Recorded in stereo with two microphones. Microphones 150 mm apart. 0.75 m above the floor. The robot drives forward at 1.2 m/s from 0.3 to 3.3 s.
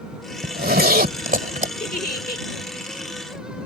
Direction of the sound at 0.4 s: 80° right.